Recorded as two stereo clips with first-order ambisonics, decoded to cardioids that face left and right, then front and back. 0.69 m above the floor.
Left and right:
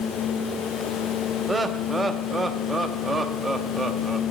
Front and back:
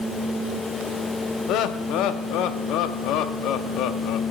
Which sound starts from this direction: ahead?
Laughter, at 1.5 s.